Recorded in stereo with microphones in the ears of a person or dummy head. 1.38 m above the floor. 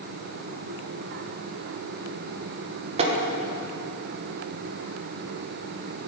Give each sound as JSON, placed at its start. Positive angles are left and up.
{"t": 3.0, "sound": "tapping", "side_deg": -30, "distance_m": 1.3}